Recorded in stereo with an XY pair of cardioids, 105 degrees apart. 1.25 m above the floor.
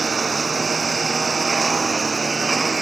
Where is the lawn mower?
35° right; by 2.8 s 30° right.